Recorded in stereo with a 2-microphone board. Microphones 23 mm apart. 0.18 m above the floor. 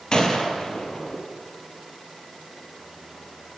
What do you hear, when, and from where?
0.1 s a gunshot: 40° left (ahead or behind), 4 m